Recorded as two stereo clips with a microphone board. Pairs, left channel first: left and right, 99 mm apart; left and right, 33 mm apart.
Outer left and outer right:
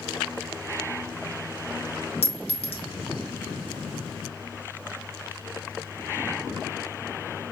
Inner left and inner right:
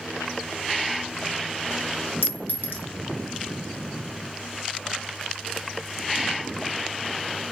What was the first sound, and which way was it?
A clink, 85° left.